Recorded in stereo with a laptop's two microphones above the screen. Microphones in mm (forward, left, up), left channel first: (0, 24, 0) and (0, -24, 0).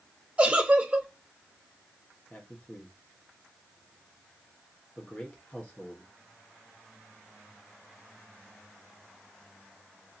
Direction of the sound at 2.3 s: 30° left (ahead or behind).